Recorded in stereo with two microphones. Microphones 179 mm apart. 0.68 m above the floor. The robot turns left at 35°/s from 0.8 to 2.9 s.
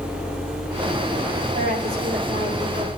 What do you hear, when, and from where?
1.5 s a woman speaking: 90° right, 4 m; by 2.9 s 135° right, 4 m